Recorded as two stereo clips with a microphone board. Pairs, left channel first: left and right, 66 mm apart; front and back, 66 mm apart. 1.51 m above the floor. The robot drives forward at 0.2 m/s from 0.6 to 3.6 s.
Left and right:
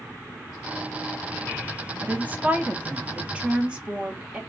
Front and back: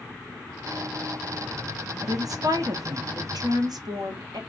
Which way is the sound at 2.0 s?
155° right.